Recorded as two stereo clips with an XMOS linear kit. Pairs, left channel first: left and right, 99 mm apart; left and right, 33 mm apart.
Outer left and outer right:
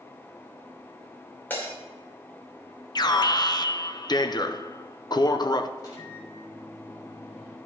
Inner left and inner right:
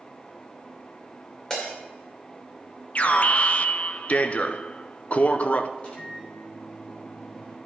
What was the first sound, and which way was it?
Breaking glass, 20° left (ahead or behind).